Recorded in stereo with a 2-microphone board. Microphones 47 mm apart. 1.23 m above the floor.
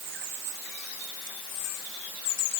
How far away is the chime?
I don't hear a chime.